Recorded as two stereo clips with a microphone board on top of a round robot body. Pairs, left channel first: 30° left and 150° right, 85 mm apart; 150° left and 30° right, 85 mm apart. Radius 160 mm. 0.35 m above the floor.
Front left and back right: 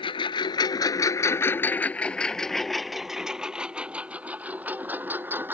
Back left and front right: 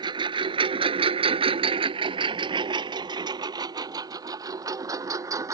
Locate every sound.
0.0 s a lawn mower: 5° left; by 5.5 s 85° right